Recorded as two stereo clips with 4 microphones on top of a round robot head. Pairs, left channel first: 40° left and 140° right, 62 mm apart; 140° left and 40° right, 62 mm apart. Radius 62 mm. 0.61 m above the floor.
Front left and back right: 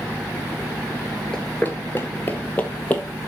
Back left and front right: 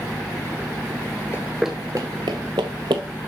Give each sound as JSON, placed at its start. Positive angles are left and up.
{"t": 1.3, "sound": "running footsteps", "azimuth_deg": 115, "distance_m": 0.6}